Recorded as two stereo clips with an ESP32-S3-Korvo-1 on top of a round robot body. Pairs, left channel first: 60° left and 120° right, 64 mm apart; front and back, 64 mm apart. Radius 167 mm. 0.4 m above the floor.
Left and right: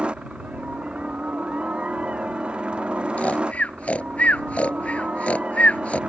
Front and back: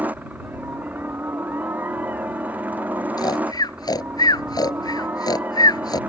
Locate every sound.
0.0 s a helicopter: 170° right
3.2 s snoring: 10° right